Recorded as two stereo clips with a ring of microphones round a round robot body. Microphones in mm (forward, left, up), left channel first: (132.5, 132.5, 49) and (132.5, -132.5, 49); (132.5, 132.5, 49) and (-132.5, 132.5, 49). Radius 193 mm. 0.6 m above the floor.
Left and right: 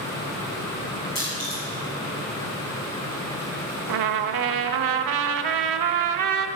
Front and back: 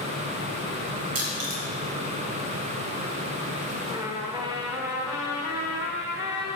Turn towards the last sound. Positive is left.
turn(degrees=-100)